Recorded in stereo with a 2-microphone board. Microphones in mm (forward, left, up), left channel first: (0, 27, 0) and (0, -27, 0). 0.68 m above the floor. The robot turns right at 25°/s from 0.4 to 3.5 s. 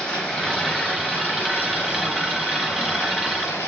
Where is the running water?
20° left, 1.1 m; by 3.7 s 100° left, 1.1 m.